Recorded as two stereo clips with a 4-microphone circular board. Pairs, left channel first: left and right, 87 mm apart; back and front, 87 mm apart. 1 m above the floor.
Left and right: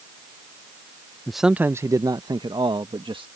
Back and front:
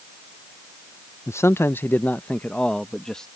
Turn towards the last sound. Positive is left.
turn(degrees=-95)